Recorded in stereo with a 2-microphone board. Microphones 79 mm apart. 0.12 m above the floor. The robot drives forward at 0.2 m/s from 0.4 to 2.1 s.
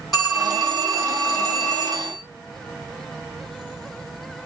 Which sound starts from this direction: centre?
A phone ringing, at 0.1 s.